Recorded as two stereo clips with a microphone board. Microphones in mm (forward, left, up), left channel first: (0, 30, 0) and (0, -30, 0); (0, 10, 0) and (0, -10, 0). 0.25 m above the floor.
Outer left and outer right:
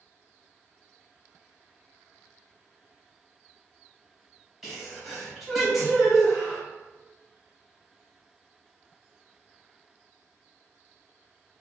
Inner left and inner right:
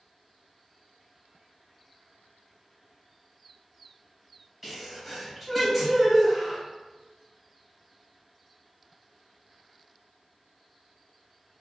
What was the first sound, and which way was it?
A sneeze, centre (ahead or behind).